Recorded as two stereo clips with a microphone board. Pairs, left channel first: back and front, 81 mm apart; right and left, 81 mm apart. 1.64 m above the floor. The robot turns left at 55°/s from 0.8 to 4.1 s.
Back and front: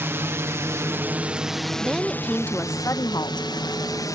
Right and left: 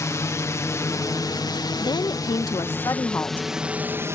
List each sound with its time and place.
0.0 s a drone: 55° right; by 4.2 s 140° left
1.8 s a woman speaking: 75° right; by 4.2 s 160° left